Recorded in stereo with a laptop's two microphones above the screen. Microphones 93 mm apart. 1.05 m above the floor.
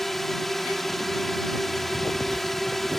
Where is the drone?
Centre (ahead or behind).